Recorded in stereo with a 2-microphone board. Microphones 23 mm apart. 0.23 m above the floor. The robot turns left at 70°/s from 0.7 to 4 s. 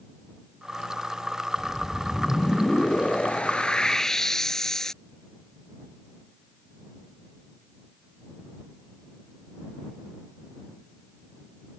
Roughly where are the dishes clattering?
I don't hear dishes clattering.